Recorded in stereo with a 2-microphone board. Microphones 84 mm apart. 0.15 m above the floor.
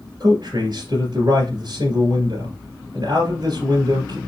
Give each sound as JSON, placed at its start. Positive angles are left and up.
{"t": 0.2, "sound": "a man speaking", "side_deg": -50, "distance_m": 2.0}